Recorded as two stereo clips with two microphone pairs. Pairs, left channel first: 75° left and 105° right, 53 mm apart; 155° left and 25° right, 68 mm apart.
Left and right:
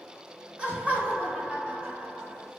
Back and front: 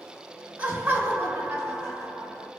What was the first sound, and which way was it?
Laughter, 65° right.